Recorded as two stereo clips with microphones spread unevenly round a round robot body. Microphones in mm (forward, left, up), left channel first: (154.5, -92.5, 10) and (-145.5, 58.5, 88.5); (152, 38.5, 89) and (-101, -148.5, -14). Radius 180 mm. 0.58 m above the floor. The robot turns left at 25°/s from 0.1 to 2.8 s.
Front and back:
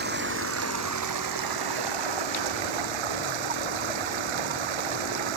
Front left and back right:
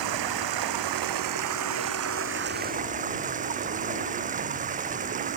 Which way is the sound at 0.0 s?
145° right.